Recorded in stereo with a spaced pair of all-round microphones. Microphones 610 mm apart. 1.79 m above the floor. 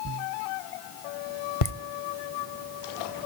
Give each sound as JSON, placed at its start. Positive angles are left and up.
{"t": 1.6, "sound": "laughter", "side_deg": 65, "distance_m": 0.8}